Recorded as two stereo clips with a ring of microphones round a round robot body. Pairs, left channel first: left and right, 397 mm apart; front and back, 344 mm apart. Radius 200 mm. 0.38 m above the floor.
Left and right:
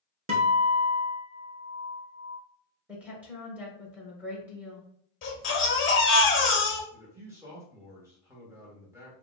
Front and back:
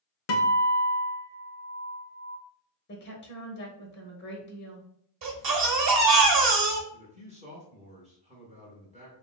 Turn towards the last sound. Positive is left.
turn(degrees=-165)